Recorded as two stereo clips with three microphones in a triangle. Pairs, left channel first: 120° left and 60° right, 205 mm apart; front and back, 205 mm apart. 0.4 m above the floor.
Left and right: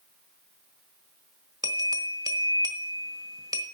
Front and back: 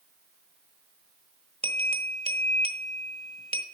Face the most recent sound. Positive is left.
turn(degrees=-130)